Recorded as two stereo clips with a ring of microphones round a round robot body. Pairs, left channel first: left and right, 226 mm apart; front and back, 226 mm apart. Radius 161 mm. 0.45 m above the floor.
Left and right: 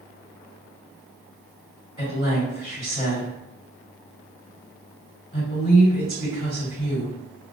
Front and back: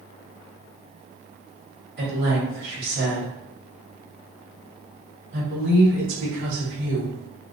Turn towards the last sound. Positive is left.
turn(degrees=165)